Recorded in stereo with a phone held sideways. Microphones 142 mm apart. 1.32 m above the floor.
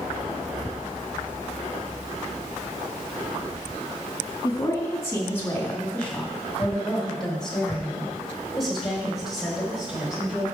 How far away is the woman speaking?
About 1.8 m.